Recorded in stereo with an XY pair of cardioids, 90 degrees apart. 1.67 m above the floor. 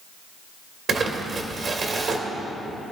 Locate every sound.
0.9 s crumpling: 55° right, 2.5 m